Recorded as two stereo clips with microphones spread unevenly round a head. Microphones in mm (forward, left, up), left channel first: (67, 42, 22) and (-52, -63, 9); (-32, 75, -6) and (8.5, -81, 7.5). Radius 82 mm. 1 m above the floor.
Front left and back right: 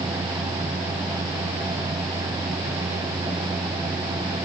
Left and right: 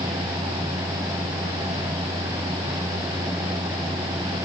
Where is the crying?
No crying in this recording.